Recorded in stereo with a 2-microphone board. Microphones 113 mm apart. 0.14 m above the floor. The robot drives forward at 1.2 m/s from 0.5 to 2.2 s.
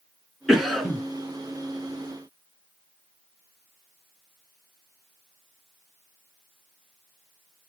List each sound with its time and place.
0.5 s a cough: centre (ahead or behind), 1.4 m